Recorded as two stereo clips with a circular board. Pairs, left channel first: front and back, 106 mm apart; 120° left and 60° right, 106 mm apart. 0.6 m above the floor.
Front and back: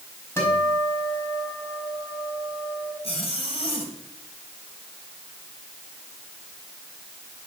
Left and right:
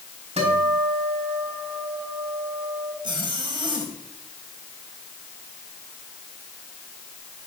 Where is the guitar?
65° right, 5 m.